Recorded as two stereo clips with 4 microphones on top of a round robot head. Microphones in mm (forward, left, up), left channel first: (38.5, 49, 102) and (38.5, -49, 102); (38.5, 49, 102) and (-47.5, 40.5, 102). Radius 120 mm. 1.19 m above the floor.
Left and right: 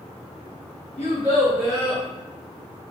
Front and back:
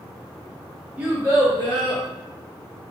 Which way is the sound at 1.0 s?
120° left.